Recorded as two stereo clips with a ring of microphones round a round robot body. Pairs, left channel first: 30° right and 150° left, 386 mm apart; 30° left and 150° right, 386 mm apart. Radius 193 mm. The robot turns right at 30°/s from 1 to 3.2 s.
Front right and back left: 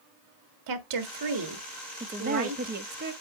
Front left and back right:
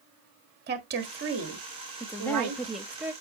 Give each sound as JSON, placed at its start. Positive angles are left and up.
{"t": 0.7, "sound": "a woman speaking", "azimuth_deg": 150, "distance_m": 1.6}
{"t": 2.0, "sound": "a woman speaking", "azimuth_deg": 100, "distance_m": 0.9}